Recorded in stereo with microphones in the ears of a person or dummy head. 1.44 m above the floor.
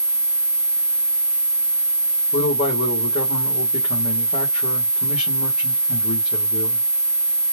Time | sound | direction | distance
2.3 | a man speaking | 40° left (ahead or behind) | 1.7 m